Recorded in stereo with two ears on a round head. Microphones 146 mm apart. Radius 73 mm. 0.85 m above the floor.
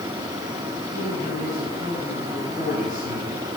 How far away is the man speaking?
About 8.5 m.